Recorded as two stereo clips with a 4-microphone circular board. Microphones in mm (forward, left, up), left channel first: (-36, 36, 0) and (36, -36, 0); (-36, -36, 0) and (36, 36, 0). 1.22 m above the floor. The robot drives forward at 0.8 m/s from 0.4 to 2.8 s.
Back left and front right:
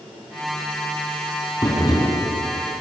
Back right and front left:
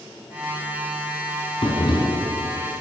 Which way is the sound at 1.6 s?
170° right.